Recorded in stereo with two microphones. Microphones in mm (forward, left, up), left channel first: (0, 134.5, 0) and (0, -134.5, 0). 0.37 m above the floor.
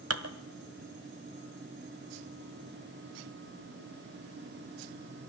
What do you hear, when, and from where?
0.1 s dishes clattering: 60° right (ahead or behind), 1.4 m